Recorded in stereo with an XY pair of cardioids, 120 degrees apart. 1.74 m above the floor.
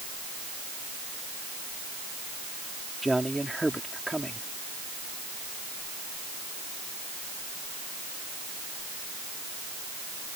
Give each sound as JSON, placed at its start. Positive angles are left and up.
{"t": 3.0, "sound": "a man speaking", "azimuth_deg": -5}